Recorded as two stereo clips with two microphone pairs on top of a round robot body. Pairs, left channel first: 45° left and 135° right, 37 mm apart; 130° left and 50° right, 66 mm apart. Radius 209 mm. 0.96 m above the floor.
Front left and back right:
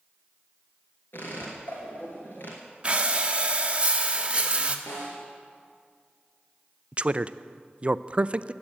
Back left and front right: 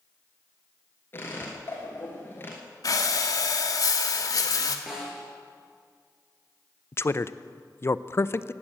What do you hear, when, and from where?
1.1 s a squeak: 75° left, 1.2 m
2.8 s breathing: 160° left, 1.0 m
4.9 s a snare drum: 35° left, 4.5 m
6.9 s a man speaking: 175° left, 0.6 m